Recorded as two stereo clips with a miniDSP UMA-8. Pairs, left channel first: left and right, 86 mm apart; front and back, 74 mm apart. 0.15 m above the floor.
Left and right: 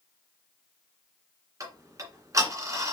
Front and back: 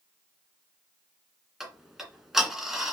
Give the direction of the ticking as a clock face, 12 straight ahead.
3 o'clock.